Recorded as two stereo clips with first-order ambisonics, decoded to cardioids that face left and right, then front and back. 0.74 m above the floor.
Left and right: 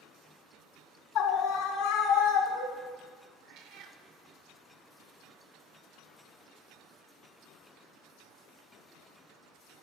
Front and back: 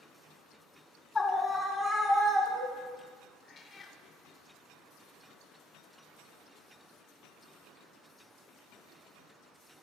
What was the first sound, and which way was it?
A scream, 75° left.